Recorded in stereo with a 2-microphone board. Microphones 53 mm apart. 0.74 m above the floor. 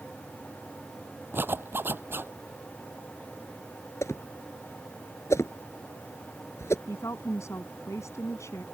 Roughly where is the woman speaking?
Left.